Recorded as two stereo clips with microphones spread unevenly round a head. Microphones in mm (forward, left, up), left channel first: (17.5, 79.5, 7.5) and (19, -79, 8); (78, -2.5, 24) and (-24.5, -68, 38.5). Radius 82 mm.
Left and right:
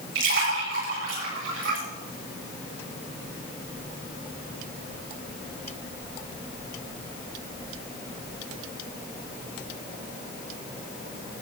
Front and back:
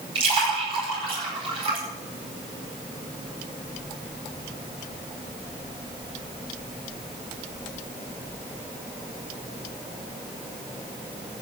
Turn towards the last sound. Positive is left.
turn(degrees=-105)